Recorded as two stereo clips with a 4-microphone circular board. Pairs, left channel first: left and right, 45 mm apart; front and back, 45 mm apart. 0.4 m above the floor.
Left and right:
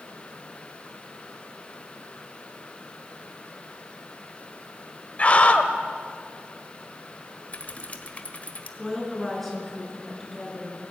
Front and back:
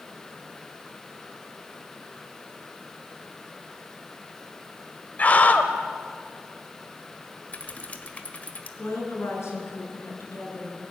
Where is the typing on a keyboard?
45° left, 1.6 m.